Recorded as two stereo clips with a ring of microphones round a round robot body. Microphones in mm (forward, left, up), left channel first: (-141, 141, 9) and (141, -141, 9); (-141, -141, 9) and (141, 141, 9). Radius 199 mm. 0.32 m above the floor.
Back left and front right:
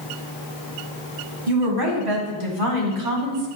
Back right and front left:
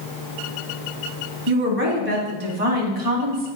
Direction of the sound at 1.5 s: 15° right.